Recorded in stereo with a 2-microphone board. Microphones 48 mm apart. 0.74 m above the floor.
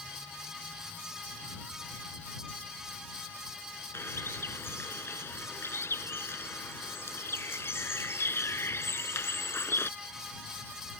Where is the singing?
I don't hear singing.